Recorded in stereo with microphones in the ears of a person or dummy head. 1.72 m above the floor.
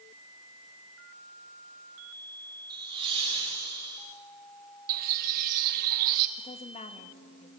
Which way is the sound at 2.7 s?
25° right (ahead or behind).